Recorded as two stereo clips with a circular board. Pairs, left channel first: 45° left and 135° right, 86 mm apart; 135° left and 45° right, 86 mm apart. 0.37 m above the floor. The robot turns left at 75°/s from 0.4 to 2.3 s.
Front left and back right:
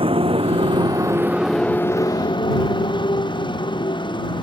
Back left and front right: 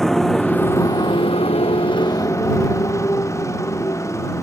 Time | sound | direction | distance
0.0 | a motorcycle | 140° right | ?